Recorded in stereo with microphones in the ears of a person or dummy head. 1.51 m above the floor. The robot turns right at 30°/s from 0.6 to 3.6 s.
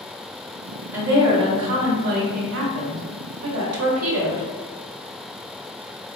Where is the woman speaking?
170° right, 0.8 m; by 4.5 s 90° right, 0.8 m.